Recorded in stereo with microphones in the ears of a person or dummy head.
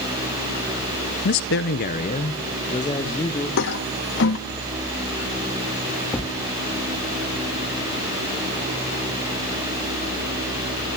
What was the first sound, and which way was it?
A man speaking, 40° left (ahead or behind).